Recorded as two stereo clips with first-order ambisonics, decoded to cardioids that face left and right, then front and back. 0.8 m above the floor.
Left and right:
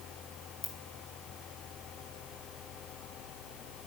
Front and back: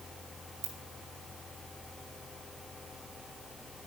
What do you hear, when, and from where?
0.6 s a ringtone: 135° left, 2.5 m